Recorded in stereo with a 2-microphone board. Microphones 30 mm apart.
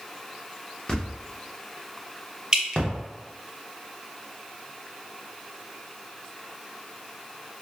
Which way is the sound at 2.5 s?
25° right (ahead or behind).